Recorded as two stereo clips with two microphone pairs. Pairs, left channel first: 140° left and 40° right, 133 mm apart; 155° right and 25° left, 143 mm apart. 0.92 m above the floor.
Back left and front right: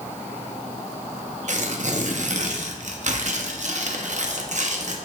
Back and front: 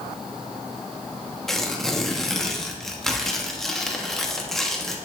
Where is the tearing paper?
70° right, 0.8 m.